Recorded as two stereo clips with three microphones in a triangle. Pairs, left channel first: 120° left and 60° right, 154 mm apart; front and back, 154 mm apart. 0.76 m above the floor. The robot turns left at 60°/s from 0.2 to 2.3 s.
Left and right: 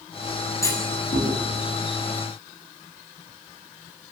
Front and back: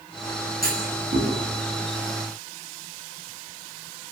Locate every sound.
0.6 s a clunk: 170° right, 7 m; by 1.3 s 150° left, 7 m